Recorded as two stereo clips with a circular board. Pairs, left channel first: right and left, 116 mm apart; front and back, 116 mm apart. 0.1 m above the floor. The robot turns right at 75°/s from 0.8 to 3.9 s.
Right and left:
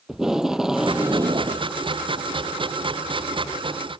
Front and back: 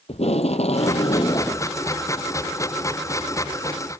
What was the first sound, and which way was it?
Tape being pulled, 5° left.